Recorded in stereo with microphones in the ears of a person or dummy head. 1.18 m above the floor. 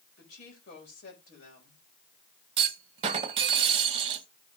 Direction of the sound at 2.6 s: 40° right (ahead or behind).